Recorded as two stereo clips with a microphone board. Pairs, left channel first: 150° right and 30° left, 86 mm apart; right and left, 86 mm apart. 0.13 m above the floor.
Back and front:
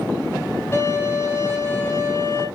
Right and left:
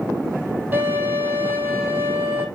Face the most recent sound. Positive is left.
turn(degrees=155)